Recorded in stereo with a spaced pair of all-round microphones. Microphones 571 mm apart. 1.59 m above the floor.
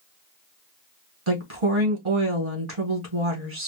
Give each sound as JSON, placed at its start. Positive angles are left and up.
{"t": 1.3, "sound": "a woman speaking", "side_deg": -50, "distance_m": 2.0}